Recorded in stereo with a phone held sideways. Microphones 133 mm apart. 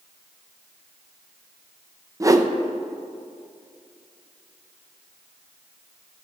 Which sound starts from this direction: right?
A whoosh, at 2.2 s.